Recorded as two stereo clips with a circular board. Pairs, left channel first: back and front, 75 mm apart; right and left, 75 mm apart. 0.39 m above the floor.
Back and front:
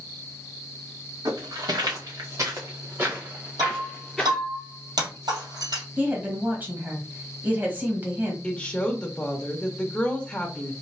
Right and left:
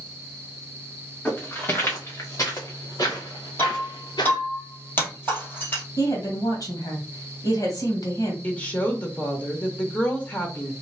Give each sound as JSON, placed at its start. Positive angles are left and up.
{"t": 1.2, "sound": "footsteps", "azimuth_deg": -25, "distance_m": 2.5}
{"t": 3.6, "sound": "breaking glass", "azimuth_deg": -30, "distance_m": 2.5}
{"t": 6.0, "sound": "a woman speaking", "azimuth_deg": -65, "distance_m": 1.9}
{"t": 8.4, "sound": "a woman speaking", "azimuth_deg": -125, "distance_m": 1.1}